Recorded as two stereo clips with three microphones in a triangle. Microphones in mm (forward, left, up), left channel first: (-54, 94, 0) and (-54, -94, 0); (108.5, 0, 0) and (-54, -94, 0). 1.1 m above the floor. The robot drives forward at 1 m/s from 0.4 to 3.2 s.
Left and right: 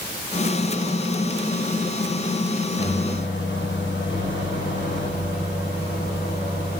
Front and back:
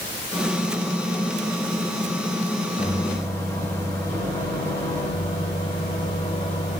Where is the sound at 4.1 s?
95° left, 4 m.